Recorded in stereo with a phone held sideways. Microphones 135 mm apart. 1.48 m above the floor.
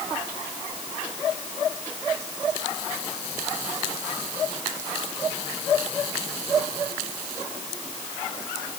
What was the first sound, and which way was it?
Only background noise.